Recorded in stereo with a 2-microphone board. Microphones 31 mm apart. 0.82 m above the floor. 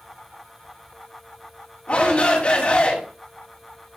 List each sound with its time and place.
1.9 s a shout: 50° left (ahead or behind), 5.5 m